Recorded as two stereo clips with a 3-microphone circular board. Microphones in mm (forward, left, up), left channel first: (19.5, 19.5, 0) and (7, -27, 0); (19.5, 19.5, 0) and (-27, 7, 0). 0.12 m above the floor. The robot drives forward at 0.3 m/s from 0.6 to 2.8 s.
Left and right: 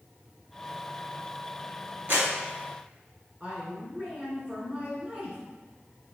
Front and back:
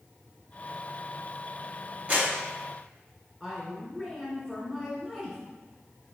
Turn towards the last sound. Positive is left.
turn(degrees=-100)